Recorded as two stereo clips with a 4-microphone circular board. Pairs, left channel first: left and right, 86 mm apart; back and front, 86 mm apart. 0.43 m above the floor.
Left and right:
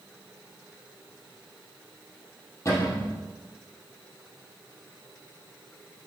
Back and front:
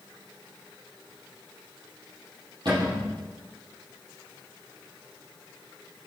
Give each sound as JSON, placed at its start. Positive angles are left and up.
{"t": 2.6, "sound": "a cupboard door", "azimuth_deg": 35, "distance_m": 4.5}